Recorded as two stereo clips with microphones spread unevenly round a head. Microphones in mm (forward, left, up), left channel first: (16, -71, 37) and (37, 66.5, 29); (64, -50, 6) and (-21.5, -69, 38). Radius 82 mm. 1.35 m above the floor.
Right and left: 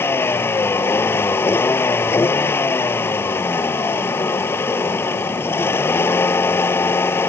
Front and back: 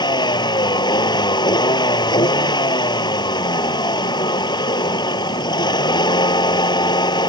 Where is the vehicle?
25° right.